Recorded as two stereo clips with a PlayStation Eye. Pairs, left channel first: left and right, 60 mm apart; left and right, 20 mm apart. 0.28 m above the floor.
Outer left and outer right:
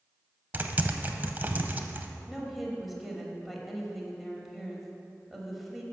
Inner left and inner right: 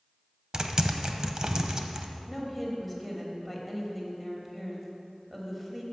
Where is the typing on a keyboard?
30° right (ahead or behind), 0.6 m.